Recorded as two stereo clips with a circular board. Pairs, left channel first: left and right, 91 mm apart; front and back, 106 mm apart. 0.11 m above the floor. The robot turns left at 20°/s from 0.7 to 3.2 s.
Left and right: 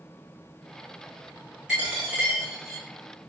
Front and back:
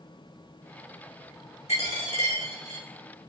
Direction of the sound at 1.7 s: 10° right.